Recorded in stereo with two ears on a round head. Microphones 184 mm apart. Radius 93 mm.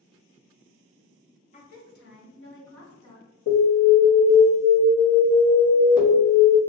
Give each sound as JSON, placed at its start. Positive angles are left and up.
{"t": 1.5, "sound": "a woman speaking", "side_deg": 35, "distance_m": 0.8}
{"t": 3.5, "sound": "an alarm", "side_deg": 45, "distance_m": 1.6}